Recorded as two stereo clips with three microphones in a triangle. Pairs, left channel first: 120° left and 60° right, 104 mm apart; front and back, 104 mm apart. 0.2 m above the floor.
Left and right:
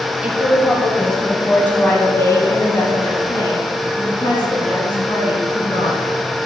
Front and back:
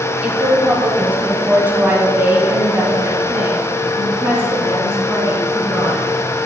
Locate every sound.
0.2 s a woman speaking: 120° right, 1.7 m; by 6.0 s 115° left, 3 m